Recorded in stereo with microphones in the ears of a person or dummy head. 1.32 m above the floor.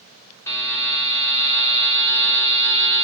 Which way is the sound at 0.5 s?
15° left (ahead or behind).